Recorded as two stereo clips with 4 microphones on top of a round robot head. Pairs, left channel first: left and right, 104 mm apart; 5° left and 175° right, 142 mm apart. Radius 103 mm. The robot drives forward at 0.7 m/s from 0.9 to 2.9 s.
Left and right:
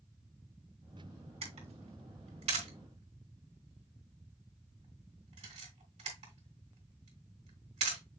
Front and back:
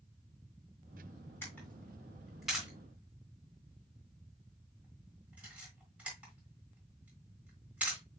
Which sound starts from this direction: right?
A camera shutter, at 1.4 s.